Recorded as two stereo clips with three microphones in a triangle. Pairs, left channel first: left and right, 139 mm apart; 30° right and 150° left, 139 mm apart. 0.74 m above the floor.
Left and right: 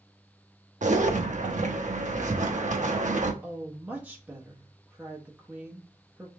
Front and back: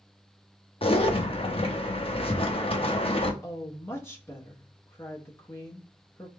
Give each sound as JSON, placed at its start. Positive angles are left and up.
{"t": 0.8, "sound": "a zipper", "azimuth_deg": -75, "distance_m": 0.7}
{"t": 3.4, "sound": "a woman speaking", "azimuth_deg": -35, "distance_m": 0.9}